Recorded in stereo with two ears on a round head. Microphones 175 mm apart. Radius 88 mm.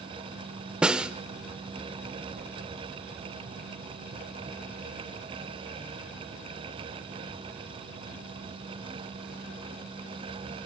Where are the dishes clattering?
No dishes clattering in this recording.